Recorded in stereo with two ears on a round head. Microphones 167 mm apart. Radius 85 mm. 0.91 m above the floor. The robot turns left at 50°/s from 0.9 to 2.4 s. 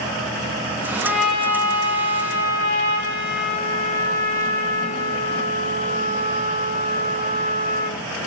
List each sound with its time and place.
1.0 s a trumpet: 170° right, 9.5 m; by 8.0 s 120° left, 9.5 m